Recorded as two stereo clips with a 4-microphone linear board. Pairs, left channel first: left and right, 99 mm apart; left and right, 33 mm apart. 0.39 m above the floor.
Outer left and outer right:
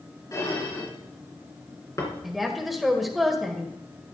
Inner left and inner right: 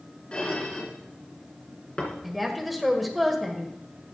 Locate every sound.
0.3 s dishes clattering: 35° left (ahead or behind), 3 m
2.2 s a woman speaking: centre (ahead or behind), 1.7 m